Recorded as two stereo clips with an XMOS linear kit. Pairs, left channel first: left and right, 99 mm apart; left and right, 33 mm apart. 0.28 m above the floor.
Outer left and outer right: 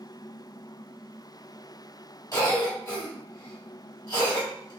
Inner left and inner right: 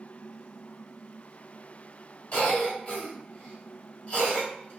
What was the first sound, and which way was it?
A cough, 30° left (ahead or behind).